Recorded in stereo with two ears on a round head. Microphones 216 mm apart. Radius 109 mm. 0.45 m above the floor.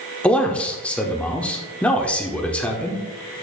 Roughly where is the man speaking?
Centre.